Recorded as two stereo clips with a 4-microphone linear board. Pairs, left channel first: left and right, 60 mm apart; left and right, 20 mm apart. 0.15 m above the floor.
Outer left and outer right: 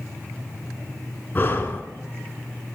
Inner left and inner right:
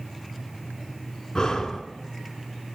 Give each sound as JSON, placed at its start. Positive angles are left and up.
{"t": 1.4, "sound": "breathing", "side_deg": 35, "distance_m": 0.6}